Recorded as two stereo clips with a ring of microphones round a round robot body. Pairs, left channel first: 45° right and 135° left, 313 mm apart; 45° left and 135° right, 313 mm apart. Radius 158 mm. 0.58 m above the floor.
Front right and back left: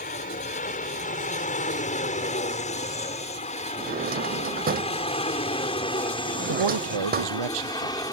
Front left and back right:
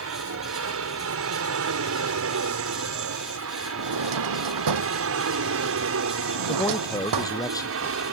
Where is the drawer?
160° right.